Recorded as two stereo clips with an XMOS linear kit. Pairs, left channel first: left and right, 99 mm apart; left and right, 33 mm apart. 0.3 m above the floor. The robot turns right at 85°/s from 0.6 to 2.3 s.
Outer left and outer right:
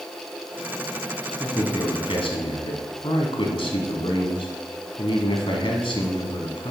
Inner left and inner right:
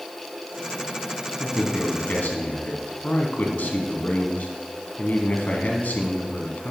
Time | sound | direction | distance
1.4 | a man speaking | 20° left | 2.0 m